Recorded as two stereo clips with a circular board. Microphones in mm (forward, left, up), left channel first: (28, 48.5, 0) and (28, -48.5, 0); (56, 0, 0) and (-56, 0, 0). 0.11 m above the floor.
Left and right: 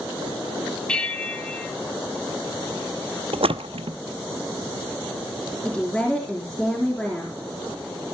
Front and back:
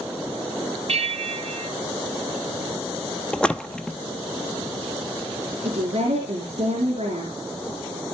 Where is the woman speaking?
170° left, 4 m.